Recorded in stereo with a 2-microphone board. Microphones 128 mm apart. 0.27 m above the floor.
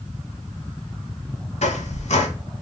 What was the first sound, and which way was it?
A squeak, 65° left (ahead or behind).